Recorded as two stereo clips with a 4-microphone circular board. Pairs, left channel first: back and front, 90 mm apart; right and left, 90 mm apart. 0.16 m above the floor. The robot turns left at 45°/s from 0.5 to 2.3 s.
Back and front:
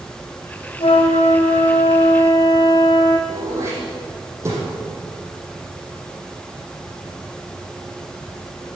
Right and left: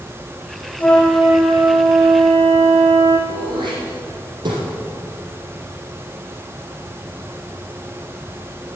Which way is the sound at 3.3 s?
60° left.